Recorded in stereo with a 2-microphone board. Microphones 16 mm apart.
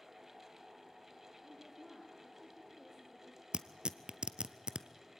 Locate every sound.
1.4 s a woman speaking: centre (ahead or behind), 4.5 m
3.5 s tearing paper: 70° right (ahead or behind), 0.8 m